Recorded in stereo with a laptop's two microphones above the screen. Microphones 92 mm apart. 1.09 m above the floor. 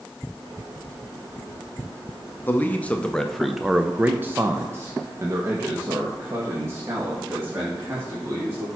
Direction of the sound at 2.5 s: 20° left (ahead or behind).